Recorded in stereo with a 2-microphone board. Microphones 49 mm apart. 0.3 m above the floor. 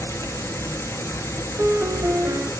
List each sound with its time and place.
0.0 s an insect: 80° left, 1.2 m
1.6 s a piano: 40° right (ahead or behind), 0.8 m